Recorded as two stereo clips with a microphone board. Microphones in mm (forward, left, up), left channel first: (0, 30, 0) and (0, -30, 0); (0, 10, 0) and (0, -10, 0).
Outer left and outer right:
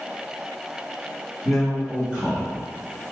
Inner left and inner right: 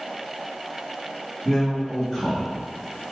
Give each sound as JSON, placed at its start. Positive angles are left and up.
{"t": 1.4, "sound": "a man speaking", "side_deg": 0, "distance_m": 0.8}